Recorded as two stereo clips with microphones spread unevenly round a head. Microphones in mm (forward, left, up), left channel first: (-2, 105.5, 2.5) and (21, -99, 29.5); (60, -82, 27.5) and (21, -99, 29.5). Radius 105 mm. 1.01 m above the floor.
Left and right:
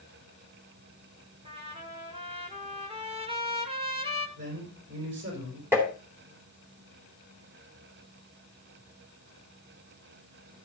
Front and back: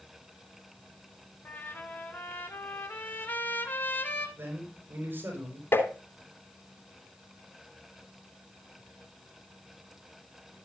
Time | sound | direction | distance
1.4 | a trumpet | 20° right | 3 m
4.4 | a man speaking | 120° right | 4.5 m
5.7 | tapping | 5° right | 3.5 m